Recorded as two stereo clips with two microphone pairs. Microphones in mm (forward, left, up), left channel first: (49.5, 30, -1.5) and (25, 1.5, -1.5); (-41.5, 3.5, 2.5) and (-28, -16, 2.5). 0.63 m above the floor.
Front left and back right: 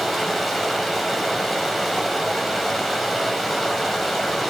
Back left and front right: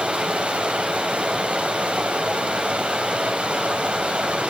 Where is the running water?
35° right, 3.5 m.